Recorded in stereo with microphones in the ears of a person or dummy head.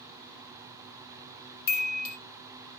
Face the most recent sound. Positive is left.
turn(degrees=60)  # may be behind; listen again after turning